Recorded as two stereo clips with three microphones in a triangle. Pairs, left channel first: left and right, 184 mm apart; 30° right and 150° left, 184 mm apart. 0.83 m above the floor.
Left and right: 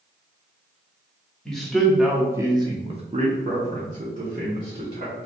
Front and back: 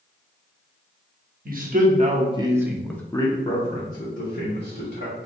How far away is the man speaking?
About 0.9 m.